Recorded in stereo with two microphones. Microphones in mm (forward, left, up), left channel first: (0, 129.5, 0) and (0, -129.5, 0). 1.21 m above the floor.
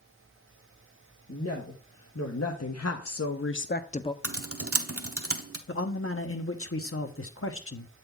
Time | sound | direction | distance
1.3 | a woman speaking | 75° left (ahead or behind) | 1.5 m
4.2 | typing on a keyboard | 65° right (ahead or behind) | 0.8 m
5.7 | a man speaking | 60° left (ahead or behind) | 0.9 m